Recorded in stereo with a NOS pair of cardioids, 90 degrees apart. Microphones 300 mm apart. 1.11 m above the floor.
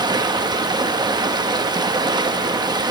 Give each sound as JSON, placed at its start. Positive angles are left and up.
{"t": 0.0, "sound": "running water", "azimuth_deg": -15, "distance_m": 1.0}